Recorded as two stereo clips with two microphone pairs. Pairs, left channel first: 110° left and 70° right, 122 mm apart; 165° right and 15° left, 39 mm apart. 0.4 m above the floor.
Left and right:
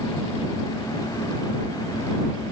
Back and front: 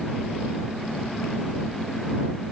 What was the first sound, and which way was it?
Only background noise.